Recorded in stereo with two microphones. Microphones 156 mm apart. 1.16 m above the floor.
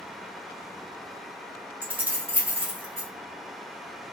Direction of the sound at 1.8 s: 10° right (ahead or behind).